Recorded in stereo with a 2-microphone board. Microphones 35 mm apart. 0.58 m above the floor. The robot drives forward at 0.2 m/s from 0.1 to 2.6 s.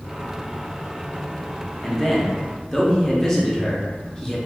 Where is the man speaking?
15° left (ahead or behind), 0.6 m.